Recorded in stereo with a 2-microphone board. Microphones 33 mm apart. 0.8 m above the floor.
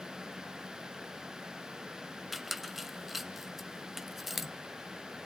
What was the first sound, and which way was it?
A squeak, 5° right (ahead or behind).